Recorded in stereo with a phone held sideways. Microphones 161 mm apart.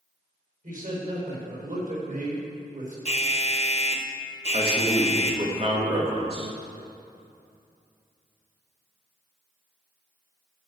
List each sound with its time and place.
0.6 s a man speaking: 55° right (ahead or behind), 4.5 m
3.0 s an alarm: 40° left (ahead or behind), 1.0 m
4.5 s a man speaking: 35° right (ahead or behind), 2 m